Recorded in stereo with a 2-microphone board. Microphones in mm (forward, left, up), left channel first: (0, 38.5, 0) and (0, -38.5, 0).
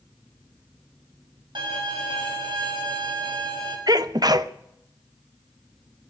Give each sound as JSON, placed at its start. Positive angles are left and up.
{"t": 1.6, "sound": "a violin", "side_deg": -85, "distance_m": 5.0}
{"t": 3.9, "sound": "a sneeze", "side_deg": -55, "distance_m": 0.8}